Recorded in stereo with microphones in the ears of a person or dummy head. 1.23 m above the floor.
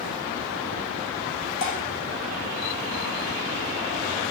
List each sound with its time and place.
1.6 s dripping: 60° left (ahead or behind), 5.5 m